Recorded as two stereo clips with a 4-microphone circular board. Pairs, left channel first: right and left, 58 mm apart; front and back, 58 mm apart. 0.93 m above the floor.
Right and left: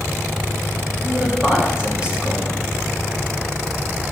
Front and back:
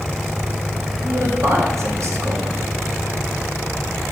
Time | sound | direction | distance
1.0 | a man speaking | 160° left | 1.9 m